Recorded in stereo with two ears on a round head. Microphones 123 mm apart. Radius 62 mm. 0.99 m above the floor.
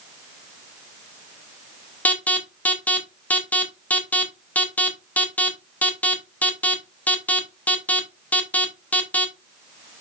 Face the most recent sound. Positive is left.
turn(degrees=10)  # may be behind; listen again after turning